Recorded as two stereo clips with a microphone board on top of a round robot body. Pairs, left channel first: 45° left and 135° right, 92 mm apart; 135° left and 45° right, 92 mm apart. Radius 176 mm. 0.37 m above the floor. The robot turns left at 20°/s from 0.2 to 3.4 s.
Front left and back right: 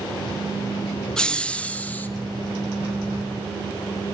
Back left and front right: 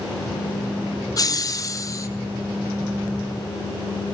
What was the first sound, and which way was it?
Laughter, 125° left.